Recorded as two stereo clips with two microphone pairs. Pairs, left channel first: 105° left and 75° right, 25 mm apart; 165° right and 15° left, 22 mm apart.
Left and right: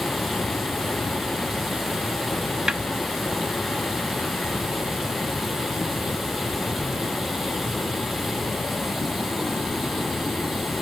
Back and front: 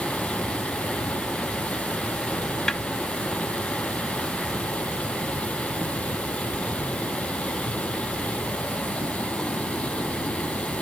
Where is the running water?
155° right.